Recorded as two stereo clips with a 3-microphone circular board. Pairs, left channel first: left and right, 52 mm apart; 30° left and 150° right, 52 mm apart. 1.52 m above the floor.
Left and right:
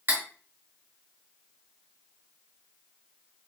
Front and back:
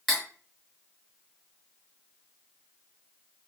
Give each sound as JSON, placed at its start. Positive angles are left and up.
{"t": 0.1, "sound": "cutlery clinking", "azimuth_deg": -55, "distance_m": 1.7}